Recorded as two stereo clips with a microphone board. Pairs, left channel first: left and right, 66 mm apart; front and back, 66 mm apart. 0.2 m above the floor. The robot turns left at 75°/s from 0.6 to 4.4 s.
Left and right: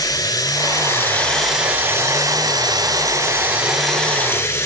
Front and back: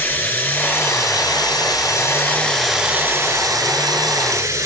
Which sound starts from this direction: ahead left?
Running water, at 0.0 s.